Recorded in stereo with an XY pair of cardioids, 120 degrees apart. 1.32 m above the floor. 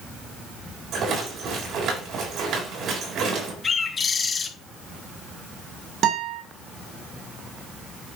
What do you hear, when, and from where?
0.9 s a rattle: 65° right, 4 m
3.6 s a bird: 30° left, 1.9 m
6.0 s a guitar: 65° right, 3 m